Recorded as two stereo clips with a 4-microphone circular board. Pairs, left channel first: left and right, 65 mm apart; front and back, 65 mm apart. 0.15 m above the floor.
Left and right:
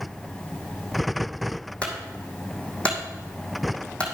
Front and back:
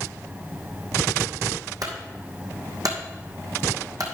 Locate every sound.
1.8 s a clunk: 165° left, 2 m